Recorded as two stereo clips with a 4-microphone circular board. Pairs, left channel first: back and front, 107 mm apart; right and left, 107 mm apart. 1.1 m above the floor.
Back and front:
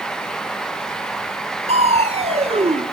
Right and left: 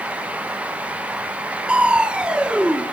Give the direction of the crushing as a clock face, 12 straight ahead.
12 o'clock.